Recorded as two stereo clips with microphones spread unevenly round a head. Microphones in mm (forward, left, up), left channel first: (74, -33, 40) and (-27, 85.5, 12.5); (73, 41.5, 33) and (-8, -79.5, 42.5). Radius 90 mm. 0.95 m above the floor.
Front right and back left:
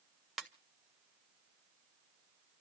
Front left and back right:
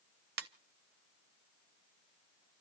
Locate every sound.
0.4 s a ringtone: 140° right, 0.8 m